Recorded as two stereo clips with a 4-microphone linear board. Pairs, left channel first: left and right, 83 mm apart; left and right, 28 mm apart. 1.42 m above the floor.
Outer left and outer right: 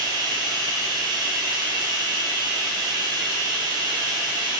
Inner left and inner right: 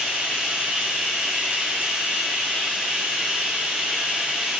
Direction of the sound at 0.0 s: 60° right (ahead or behind).